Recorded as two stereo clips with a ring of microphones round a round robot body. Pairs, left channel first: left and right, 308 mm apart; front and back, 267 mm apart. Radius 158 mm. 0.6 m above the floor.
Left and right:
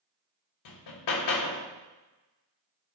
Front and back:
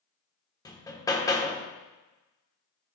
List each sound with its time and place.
0.7 s hammering: 75° left, 1.1 m